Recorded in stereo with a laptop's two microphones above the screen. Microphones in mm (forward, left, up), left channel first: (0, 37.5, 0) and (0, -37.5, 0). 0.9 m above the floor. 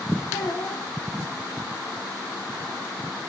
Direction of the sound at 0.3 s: 90° left.